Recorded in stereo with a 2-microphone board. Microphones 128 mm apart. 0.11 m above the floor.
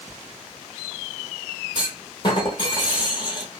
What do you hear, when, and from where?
1.8 s a clunk: 35° left (ahead or behind), 0.9 m